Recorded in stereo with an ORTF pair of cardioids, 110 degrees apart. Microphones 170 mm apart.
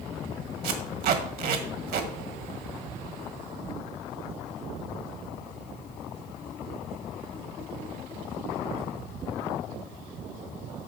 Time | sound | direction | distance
0.6 | tape being pulled | 70° right | 1.7 m